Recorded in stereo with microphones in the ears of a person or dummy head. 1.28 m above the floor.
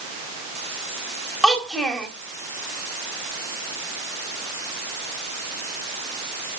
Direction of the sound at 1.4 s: Centre (ahead or behind).